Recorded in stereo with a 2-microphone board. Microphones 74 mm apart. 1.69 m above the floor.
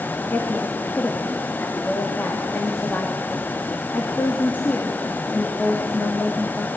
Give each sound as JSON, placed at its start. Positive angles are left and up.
{"t": 0.3, "sound": "a woman speaking", "side_deg": 25, "distance_m": 2.5}